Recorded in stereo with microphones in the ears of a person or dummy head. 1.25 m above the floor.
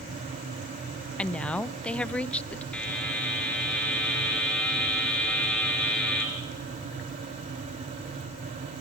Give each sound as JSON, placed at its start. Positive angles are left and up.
{"t": 1.2, "sound": "a woman speaking", "side_deg": 5, "distance_m": 0.6}
{"t": 2.7, "sound": "a buzzer", "side_deg": 5, "distance_m": 3.5}